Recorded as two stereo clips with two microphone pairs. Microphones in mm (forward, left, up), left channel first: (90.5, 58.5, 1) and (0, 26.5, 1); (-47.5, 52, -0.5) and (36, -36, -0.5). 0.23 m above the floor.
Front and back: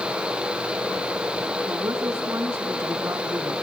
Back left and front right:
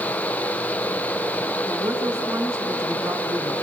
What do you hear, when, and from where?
1.7 s a woman speaking: 105° right, 2.5 m